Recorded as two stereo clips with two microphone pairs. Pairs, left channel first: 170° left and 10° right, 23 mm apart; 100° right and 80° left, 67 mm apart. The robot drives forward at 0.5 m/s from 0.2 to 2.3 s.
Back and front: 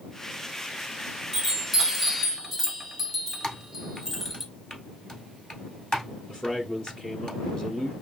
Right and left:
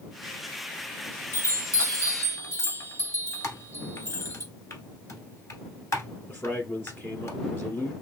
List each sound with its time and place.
1.3 s a chime: 70° right, 1.5 m; by 4.4 s 95° right, 1.5 m
3.4 s typing on a keyboard: 130° right, 1.0 m
6.3 s a man speaking: 140° right, 1.4 m